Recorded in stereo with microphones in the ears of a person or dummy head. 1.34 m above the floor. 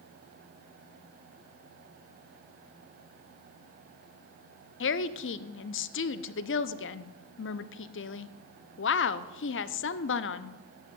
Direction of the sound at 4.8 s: 55° left (ahead or behind).